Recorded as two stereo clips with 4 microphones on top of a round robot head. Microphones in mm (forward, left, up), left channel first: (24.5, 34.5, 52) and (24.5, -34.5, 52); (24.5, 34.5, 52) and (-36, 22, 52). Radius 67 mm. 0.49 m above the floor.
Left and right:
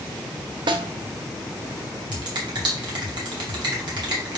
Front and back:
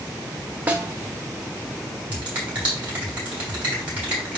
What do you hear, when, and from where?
0.7 s a snare drum: 100° right, 0.9 m
2.1 s a finger snap: 95° right, 3.5 m